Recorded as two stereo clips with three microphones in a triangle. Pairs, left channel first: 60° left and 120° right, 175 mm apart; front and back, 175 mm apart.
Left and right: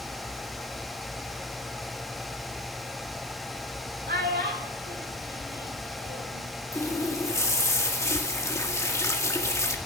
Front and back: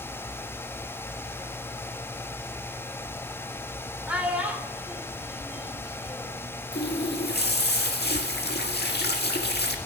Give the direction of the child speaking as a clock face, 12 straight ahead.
3 o'clock.